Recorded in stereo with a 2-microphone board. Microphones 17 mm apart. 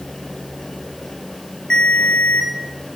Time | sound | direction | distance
1.7 | a ringtone | 55° left (ahead or behind) | 4 m